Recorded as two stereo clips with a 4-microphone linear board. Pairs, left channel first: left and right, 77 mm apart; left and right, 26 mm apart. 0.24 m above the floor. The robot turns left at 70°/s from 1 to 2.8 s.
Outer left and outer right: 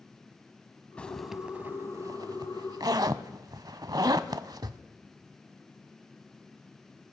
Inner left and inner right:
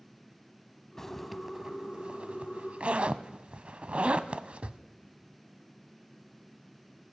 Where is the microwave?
I don't hear a microwave.